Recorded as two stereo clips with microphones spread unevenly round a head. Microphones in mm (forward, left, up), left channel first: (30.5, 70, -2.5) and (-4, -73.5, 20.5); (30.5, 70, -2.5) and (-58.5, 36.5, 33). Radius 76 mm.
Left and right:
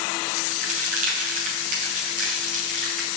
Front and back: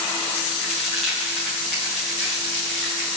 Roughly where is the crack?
Ahead right.